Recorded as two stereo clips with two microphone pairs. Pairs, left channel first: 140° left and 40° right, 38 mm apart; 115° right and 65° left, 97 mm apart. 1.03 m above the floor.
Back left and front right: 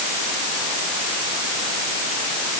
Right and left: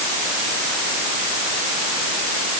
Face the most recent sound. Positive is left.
No sound to turn to.